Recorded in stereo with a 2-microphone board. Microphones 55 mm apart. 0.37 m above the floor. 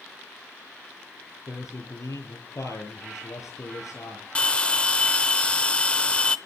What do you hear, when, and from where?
1.5 s a man speaking: 80° left, 9 m
4.3 s a bell: 20° left (ahead or behind), 0.7 m